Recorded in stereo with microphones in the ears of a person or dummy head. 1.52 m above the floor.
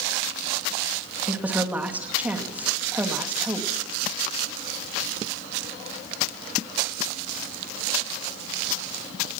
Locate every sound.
1.3 s a woman speaking: 10° right (ahead or behind), 2.5 m